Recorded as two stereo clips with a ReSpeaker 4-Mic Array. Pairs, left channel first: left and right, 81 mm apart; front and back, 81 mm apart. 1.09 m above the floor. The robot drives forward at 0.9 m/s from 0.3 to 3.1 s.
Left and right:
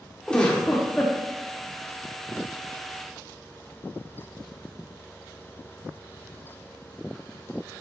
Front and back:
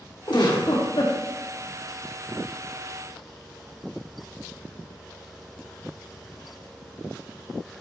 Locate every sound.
0.3 s a giggle: 15° left, 2.5 m; by 1.1 s 20° left, 1.9 m